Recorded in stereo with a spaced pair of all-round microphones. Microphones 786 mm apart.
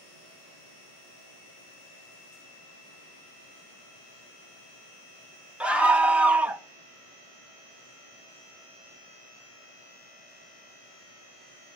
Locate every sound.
5.6 s a scream: centre (ahead or behind), 1.0 m